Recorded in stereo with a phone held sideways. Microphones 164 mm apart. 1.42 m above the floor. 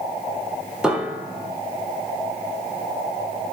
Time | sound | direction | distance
0.8 | a piano | 5° right (ahead or behind) | 3 m